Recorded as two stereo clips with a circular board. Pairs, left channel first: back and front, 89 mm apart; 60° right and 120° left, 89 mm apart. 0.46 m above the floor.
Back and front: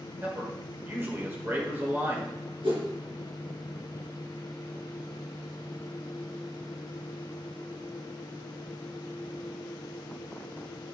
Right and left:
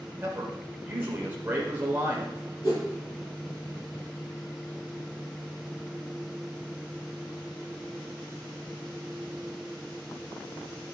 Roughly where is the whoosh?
Ahead.